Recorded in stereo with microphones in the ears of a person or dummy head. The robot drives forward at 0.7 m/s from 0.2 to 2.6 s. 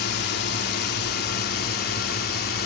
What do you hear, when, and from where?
0.0 s a drone: 55° left (ahead or behind); by 2.6 s 50° left (ahead or behind)